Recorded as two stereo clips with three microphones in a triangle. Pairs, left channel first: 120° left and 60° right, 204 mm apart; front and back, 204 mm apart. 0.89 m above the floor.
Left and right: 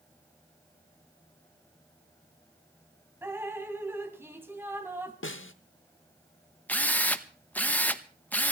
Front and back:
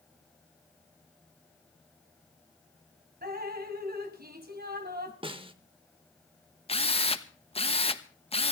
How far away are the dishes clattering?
No dishes clattering in this recording.